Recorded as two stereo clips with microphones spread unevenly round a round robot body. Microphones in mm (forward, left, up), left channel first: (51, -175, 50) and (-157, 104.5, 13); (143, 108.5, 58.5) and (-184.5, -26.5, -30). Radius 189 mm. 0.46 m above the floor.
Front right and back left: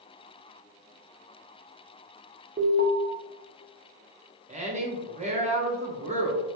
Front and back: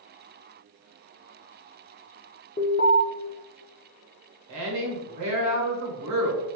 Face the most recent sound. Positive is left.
turn(degrees=-170)